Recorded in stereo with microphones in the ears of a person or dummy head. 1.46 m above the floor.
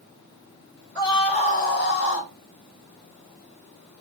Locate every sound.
0.9 s a scream: 20° left (ahead or behind), 2.0 m; by 2.3 s 70° left (ahead or behind), 1.9 m